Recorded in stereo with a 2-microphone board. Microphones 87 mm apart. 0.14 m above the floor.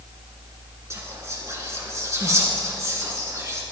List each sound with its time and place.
0.9 s whispering: 35° right (ahead or behind), 1.7 m